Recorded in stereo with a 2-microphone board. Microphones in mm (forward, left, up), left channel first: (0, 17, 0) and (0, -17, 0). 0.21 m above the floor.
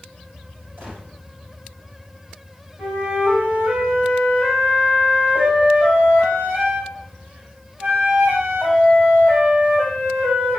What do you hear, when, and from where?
0.8 s a gunshot: 75° right (ahead or behind), 3 m
2.8 s a flute: 50° right (ahead or behind), 3.5 m